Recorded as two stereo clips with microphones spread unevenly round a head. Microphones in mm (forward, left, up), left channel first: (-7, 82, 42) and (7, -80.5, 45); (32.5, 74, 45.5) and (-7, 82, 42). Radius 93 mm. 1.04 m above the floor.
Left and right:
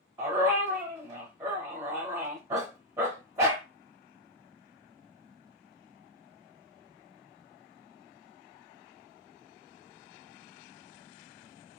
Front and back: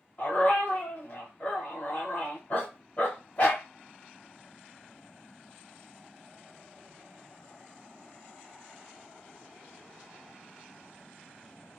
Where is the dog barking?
25° right, 0.9 m.